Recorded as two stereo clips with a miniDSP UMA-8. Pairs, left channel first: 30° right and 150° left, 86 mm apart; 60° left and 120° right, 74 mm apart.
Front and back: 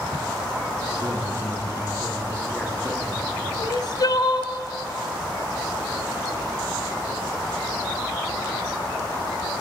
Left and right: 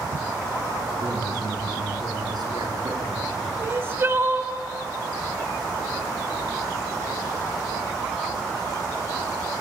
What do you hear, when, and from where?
0.9 s a man speaking: 105° right, 6 m
3.6 s crying: 65° right, 1.2 m